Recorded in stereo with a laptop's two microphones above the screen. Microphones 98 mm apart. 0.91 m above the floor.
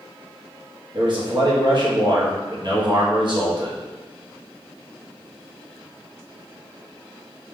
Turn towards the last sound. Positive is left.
turn(degrees=-50)  # may be behind; listen again after turning